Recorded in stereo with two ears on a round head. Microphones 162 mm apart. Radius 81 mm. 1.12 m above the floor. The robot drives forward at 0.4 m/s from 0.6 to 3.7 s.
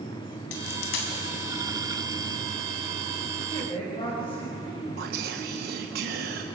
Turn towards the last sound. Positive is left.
turn(degrees=-55)  # may be behind; listen again after turning